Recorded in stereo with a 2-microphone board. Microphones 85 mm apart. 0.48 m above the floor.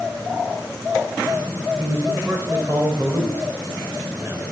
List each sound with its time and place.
1.8 s a man speaking: 35° right (ahead or behind), 2 m